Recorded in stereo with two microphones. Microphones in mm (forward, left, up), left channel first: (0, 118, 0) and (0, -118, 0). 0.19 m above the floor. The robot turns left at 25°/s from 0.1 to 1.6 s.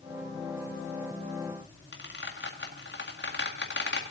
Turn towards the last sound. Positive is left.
turn(degrees=50)  # may be behind; listen again after turning